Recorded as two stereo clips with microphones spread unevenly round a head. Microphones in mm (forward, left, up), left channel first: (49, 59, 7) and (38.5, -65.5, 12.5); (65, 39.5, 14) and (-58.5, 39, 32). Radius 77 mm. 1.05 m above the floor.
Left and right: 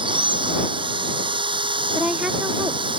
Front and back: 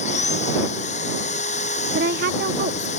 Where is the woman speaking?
Straight behind.